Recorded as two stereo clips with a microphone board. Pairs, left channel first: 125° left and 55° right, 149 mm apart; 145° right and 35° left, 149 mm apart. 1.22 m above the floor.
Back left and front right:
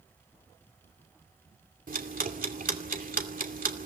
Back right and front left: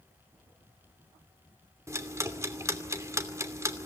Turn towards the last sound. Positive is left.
turn(degrees=-35)